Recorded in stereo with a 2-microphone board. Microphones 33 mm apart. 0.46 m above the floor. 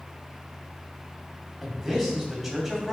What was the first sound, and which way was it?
A man speaking, centre (ahead or behind).